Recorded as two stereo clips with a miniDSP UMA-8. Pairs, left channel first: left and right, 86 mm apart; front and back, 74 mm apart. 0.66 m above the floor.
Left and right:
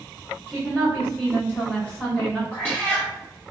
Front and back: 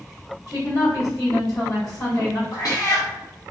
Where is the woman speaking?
25° left, 1.9 m.